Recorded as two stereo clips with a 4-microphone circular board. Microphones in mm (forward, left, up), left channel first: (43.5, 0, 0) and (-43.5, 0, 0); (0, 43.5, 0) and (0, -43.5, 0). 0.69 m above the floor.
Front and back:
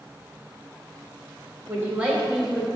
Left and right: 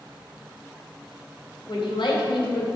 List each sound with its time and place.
1.7 s a man speaking: 115° left, 3 m; by 2.7 s 90° left, 2.5 m